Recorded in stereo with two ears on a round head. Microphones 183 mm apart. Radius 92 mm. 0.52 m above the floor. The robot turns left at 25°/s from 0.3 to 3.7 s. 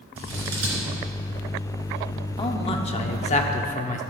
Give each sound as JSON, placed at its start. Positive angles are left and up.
{"t": 0.2, "sound": "scissors", "side_deg": -80, "distance_m": 3.5}
{"t": 2.4, "sound": "a man speaking", "azimuth_deg": 135, "distance_m": 0.9}